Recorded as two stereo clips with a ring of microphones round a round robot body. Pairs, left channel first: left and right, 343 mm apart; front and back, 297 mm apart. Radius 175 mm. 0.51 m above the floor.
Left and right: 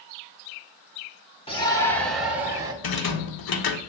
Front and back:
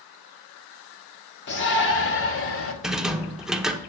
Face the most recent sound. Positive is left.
turn(degrees=90)